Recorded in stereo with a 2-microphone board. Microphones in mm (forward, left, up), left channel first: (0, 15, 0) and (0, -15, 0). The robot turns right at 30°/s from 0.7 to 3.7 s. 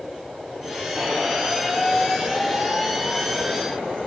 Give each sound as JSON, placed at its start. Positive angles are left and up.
{"t": 0.9, "sound": "a squeak", "azimuth_deg": -25, "distance_m": 1.4}